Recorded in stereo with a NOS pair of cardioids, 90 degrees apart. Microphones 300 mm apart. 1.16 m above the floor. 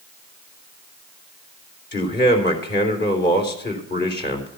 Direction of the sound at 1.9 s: 35° left.